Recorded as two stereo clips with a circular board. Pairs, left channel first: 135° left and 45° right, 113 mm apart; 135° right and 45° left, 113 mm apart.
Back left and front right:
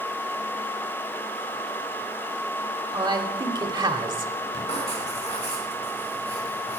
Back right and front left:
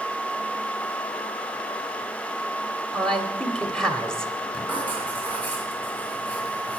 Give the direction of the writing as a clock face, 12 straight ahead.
7 o'clock.